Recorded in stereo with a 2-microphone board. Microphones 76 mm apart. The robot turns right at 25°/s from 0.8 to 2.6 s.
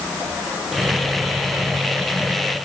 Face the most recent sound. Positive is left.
No sound to turn to.